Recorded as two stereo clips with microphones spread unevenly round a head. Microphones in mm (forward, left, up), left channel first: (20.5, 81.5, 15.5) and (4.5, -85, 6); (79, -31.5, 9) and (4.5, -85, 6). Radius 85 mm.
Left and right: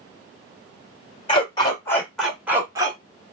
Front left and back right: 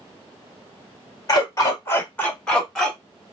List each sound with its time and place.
1.3 s a dog barking: 55° left, 1.3 m; by 3.0 s 55° right, 1.2 m